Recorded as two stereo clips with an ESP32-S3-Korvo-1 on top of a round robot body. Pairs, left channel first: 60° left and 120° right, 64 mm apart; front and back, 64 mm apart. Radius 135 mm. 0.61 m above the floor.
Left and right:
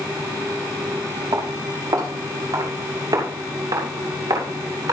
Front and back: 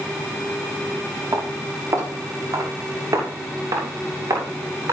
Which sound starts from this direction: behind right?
Footsteps, at 1.3 s.